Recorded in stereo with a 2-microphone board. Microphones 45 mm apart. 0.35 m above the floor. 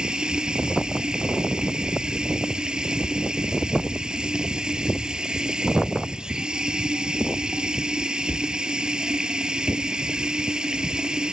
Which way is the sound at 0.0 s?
20° right (ahead or behind).